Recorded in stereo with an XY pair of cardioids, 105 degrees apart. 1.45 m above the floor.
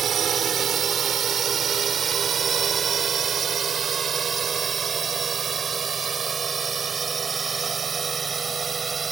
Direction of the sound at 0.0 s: 55° right.